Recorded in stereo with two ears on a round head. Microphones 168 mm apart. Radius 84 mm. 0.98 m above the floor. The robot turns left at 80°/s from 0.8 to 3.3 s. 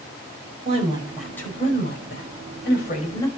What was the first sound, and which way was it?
A woman speaking, 145° right.